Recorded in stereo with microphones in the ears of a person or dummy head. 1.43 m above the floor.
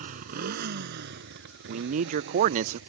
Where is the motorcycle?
45° right (ahead or behind); by 2.9 s 70° right (ahead or behind).